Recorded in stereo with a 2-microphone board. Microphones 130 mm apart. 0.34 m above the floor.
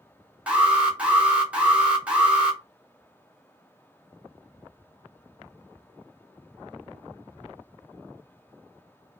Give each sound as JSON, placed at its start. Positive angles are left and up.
{"t": 0.5, "sound": "an alarm", "side_deg": -10, "distance_m": 0.8}